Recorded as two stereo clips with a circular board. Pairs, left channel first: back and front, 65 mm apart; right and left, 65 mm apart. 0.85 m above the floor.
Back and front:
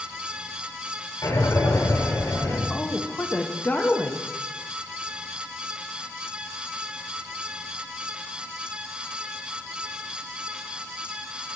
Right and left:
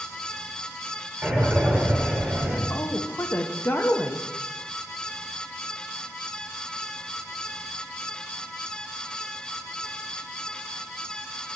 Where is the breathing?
160° left, 1.8 m.